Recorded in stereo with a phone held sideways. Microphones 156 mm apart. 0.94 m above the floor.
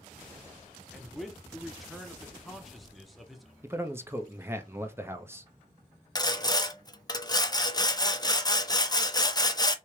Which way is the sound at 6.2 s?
25° left (ahead or behind).